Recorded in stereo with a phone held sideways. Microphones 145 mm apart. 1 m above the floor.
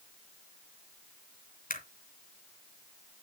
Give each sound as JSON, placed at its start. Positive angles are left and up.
{"t": 1.7, "sound": "a camera shutter", "side_deg": 70, "distance_m": 2.5}